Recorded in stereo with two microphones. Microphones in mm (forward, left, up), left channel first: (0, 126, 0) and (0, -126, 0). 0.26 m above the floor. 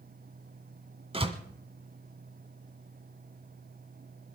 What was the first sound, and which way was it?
A door slam, 25° right (ahead or behind).